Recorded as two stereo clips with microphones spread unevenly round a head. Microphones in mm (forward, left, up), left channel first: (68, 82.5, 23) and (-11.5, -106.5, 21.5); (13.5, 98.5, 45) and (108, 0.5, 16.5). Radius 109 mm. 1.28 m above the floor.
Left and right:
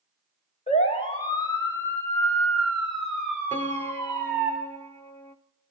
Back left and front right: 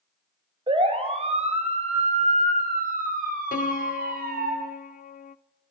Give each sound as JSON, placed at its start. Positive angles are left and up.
{"t": 0.7, "sound": "a siren", "azimuth_deg": 10, "distance_m": 4.5}
{"t": 3.5, "sound": "a piano", "azimuth_deg": 145, "distance_m": 0.6}